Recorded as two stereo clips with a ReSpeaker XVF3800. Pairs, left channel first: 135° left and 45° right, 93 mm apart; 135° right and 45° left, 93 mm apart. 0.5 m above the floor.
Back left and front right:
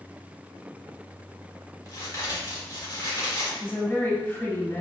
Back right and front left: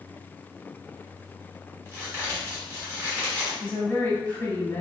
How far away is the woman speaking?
About 0.9 m.